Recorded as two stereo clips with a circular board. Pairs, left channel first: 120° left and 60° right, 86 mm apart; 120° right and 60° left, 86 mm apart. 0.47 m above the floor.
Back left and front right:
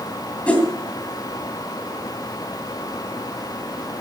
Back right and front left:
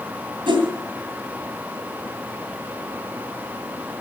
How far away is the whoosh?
About 2.5 m.